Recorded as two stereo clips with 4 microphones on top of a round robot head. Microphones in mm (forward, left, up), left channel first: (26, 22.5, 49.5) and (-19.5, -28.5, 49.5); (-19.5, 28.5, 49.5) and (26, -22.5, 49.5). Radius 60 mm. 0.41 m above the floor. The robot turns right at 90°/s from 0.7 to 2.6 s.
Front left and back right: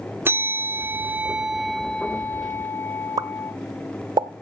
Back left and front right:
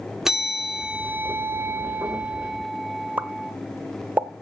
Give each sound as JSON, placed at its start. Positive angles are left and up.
{"t": 0.2, "sound": "a bell", "azimuth_deg": -125, "distance_m": 0.9}
{"t": 3.2, "sound": "a pop", "azimuth_deg": -110, "distance_m": 0.8}